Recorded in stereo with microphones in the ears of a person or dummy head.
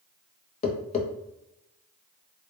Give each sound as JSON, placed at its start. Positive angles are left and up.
{"t": 0.6, "sound": "tapping", "side_deg": 35, "distance_m": 0.5}